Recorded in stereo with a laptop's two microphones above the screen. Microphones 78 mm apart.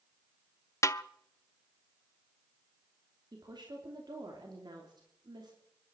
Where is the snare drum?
40° left (ahead or behind), 0.5 m.